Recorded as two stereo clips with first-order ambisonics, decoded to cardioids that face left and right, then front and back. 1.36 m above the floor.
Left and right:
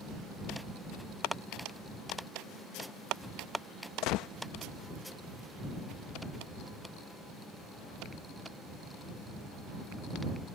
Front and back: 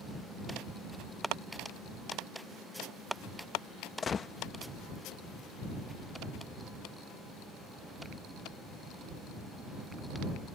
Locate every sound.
4.0 s a gunshot: 65° left